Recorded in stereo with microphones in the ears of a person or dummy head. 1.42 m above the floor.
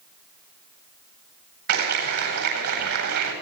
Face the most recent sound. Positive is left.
turn(degrees=-55)  # may be behind; listen again after turning